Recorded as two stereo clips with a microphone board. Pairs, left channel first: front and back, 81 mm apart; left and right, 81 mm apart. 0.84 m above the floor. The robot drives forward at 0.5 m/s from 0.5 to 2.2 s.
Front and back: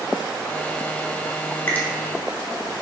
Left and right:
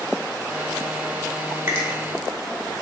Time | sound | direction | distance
1.7 | a finger snap | 45° right | 0.8 m